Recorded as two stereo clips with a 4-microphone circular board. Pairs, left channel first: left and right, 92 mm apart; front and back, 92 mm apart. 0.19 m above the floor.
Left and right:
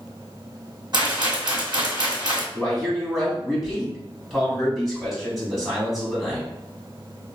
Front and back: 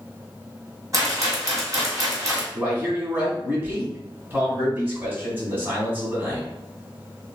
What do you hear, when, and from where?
0.9 s a rattle: 130° right, 1.8 m
2.5 s a man speaking: 175° right, 1.6 m